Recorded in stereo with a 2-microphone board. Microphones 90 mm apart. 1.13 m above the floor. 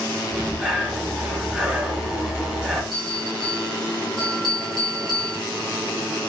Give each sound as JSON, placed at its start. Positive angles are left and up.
{"t": 0.3, "sound": "breathing", "side_deg": -10, "distance_m": 0.8}
{"t": 2.9, "sound": "a bell", "side_deg": -45, "distance_m": 2.0}